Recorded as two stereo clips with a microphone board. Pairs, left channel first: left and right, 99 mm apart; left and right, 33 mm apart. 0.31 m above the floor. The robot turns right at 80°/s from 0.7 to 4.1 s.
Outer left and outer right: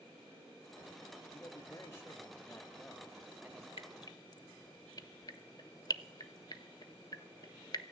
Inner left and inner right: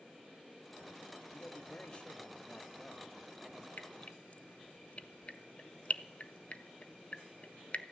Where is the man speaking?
20° left (ahead or behind), 1.0 m; by 3.7 s 25° right (ahead or behind), 1.0 m.